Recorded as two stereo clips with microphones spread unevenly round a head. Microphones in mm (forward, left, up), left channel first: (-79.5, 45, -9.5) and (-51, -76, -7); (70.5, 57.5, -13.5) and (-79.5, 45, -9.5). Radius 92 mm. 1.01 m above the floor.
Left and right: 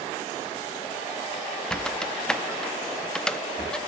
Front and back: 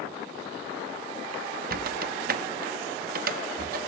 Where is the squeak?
170° right, 0.6 m.